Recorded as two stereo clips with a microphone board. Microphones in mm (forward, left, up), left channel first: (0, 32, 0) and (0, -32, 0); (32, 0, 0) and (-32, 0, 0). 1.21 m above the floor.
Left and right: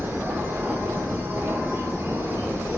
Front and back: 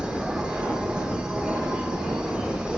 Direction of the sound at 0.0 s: 110° right.